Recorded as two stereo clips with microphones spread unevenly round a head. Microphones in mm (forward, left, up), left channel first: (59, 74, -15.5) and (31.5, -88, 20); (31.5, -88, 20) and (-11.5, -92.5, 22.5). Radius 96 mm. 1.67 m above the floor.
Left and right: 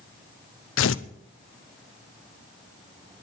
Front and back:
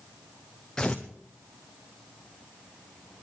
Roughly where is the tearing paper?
Left.